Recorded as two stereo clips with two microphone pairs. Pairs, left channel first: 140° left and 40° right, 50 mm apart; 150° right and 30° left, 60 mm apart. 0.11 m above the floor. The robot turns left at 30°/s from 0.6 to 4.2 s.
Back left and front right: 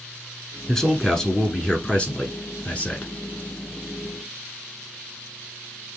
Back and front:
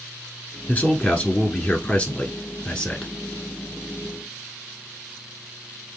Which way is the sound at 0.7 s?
145° right.